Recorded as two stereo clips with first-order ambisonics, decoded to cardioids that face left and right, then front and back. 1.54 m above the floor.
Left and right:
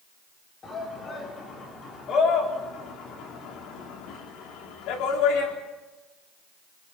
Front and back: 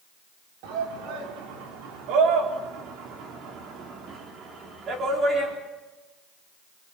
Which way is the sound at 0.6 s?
160° left.